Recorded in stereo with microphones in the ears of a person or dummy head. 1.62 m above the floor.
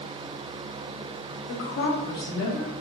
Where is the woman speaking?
70° left (ahead or behind), 1.6 m; by 2.7 s 5° right (ahead or behind), 1.2 m.